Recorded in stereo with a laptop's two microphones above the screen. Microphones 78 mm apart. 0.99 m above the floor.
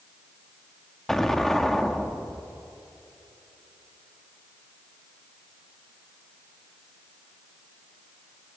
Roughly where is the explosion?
Centre.